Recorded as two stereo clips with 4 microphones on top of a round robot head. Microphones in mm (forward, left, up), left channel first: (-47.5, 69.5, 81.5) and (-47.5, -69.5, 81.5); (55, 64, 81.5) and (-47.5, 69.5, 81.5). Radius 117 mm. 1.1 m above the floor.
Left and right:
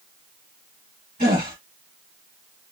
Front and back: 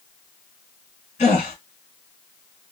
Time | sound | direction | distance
1.2 | a gasp | 30° right | 1.5 m